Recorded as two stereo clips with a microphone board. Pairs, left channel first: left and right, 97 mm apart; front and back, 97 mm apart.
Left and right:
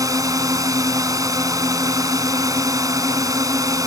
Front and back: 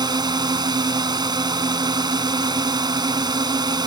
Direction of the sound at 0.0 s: 140° right.